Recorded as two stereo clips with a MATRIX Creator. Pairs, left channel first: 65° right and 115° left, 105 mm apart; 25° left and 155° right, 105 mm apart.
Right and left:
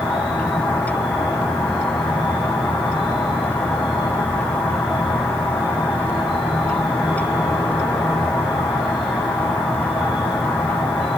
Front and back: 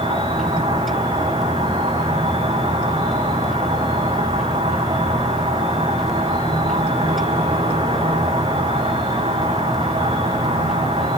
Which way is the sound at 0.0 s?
160° right.